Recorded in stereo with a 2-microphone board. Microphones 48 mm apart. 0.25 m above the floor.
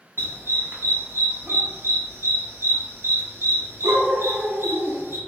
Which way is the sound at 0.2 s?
60° right (ahead or behind).